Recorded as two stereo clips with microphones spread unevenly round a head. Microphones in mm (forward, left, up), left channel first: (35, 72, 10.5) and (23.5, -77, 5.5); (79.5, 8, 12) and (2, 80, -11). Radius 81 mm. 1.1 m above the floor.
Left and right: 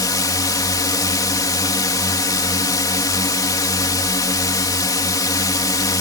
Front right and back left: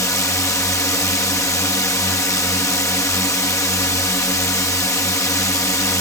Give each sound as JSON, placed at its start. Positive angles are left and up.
{"t": 0.0, "sound": "a drone", "azimuth_deg": 20}